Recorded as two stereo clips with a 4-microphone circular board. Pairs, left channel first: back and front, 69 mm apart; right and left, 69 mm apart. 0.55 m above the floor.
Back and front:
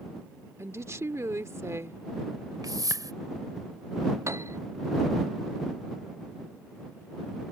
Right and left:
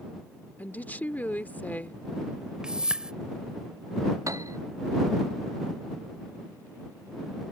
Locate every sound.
0.6 s a woman speaking: 30° right
2.6 s a whoosh: 15° left
4.3 s a piano: 50° left